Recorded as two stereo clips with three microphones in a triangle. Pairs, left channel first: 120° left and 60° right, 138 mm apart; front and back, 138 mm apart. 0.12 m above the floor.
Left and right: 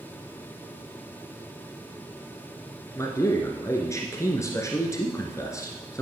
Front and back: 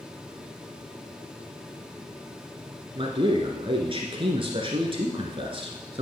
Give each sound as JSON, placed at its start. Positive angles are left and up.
{"t": 3.0, "sound": "a man speaking", "azimuth_deg": 175, "distance_m": 1.8}